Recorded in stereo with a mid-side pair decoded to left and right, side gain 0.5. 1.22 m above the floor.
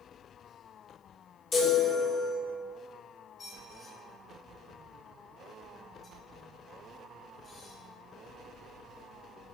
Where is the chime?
55° left, 2.5 m.